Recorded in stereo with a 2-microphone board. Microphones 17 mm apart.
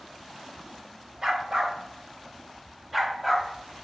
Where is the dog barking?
40° right (ahead or behind), 1.2 m; by 3.8 s 10° right (ahead or behind), 1.8 m.